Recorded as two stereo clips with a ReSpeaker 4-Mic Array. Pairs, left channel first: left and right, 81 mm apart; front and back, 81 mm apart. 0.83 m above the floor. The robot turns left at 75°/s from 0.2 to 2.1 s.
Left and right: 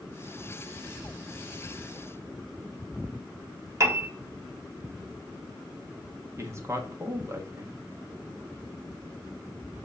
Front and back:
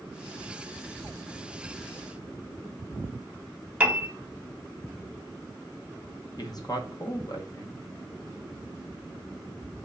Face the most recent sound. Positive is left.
turn(degrees=-35)